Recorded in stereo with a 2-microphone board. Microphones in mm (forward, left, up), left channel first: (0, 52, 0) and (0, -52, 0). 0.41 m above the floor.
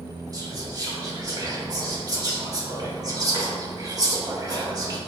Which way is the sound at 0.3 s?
35° right (ahead or behind).